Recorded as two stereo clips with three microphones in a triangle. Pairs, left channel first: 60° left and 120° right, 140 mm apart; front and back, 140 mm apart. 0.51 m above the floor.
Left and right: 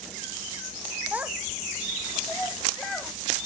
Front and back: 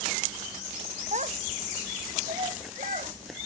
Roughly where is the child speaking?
Behind.